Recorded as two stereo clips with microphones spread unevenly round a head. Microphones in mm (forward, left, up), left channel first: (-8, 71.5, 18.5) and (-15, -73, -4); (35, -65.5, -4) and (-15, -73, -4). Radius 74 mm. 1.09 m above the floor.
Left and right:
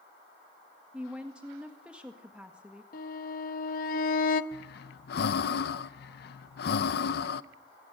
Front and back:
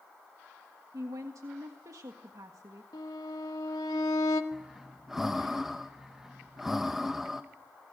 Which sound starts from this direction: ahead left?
A violin, at 2.9 s.